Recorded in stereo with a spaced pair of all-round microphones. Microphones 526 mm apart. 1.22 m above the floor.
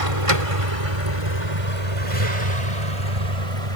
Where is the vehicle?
85° right; by 3.8 s 80° right.